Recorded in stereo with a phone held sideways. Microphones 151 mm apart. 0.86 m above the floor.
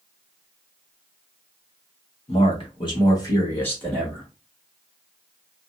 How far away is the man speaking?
About 1.3 m.